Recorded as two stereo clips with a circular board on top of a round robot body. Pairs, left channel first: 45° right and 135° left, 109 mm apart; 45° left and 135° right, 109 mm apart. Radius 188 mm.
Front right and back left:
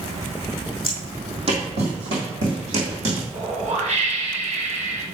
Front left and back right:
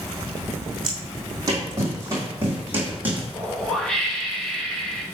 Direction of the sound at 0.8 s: 175° left.